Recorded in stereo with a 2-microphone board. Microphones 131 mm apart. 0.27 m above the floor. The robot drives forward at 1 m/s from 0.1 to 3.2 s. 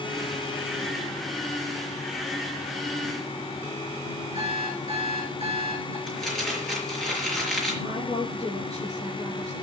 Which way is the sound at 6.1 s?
5° left (ahead or behind).